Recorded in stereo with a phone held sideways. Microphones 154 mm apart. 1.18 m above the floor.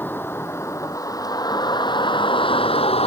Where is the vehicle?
15° left (ahead or behind); by 3.1 s 40° left (ahead or behind).